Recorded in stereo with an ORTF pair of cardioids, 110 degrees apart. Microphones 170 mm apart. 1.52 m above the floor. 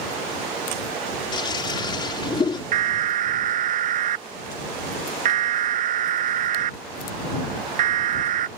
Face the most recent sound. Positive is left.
turn(degrees=-50)